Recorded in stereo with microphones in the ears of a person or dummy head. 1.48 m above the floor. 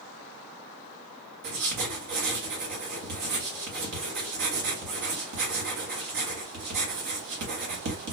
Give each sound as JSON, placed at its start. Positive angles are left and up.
{"t": 1.4, "sound": "writing", "side_deg": -65, "distance_m": 1.4}